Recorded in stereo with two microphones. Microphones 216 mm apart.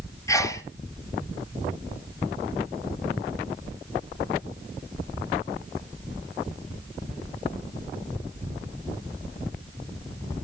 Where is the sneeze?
15° left (ahead or behind), 1.1 m.